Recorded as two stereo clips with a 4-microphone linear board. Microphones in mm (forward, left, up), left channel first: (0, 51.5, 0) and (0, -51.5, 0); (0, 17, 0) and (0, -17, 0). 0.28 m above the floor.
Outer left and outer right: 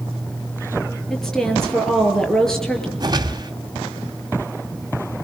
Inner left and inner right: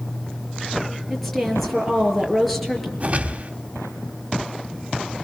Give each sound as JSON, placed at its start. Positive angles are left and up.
{"t": 1.1, "sound": "a woman speaking", "side_deg": 5, "distance_m": 6.0}
{"t": 3.0, "sound": "a whoosh", "side_deg": -40, "distance_m": 1.9}